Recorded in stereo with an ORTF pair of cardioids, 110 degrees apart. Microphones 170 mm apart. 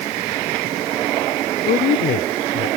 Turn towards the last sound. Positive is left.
turn(degrees=60)